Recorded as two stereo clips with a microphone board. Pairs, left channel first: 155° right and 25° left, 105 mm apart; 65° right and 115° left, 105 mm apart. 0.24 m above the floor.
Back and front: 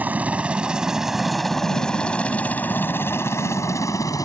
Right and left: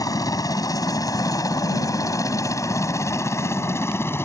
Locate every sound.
0.0 s a helicopter: 40° right; by 4.2 s 125° right